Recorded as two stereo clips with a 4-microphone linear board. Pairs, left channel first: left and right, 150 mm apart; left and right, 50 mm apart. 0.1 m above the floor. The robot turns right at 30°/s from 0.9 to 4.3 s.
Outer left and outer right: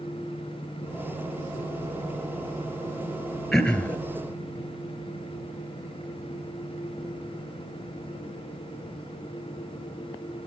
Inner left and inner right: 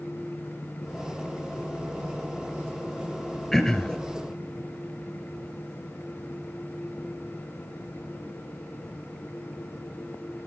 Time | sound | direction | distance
3.5 | throat clearing | centre (ahead or behind) | 1.3 m